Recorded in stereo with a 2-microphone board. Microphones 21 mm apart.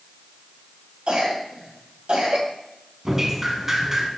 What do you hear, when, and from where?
1.1 s a cough: 60° right (ahead or behind), 2 m
3.0 s dripping: 15° right (ahead or behind), 1.0 m